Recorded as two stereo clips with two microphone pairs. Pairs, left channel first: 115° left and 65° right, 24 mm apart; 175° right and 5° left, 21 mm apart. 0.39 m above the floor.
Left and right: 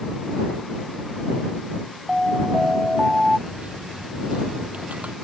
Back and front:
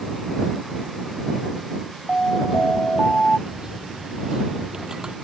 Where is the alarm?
140° right.